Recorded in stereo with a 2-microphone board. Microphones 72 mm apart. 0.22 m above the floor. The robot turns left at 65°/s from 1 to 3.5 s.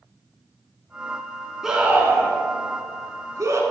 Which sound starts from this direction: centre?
A scream, at 1.6 s.